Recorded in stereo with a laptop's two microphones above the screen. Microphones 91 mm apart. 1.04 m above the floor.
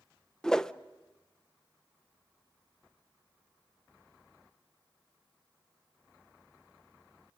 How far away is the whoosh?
About 0.6 m.